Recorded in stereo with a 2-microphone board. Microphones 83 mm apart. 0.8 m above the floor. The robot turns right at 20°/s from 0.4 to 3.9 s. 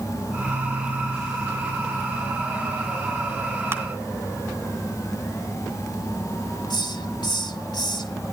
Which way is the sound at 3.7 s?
30° right (ahead or behind).